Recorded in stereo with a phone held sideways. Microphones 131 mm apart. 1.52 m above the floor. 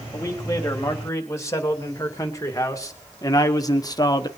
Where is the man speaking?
25° left (ahead or behind), 3.5 m; by 4.3 s 35° left (ahead or behind), 1.2 m.